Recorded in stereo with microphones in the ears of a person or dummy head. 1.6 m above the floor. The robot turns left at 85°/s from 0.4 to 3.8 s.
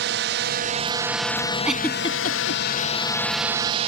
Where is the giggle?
10° right (ahead or behind); by 2.6 s 75° left (ahead or behind).